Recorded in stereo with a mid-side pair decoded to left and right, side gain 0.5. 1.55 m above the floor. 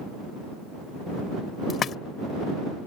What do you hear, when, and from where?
1.7 s a splash: 50° left